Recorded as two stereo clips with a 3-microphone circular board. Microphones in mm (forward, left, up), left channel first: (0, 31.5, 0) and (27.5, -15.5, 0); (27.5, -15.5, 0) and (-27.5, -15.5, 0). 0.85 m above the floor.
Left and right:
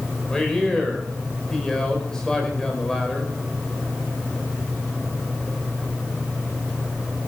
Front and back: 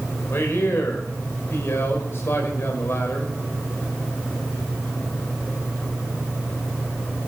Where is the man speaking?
40° left, 4 m.